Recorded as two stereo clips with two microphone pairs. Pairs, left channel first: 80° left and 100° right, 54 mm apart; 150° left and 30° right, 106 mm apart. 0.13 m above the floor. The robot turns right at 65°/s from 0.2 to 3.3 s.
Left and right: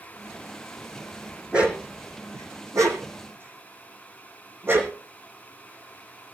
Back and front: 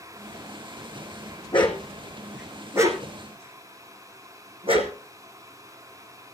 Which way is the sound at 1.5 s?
175° right.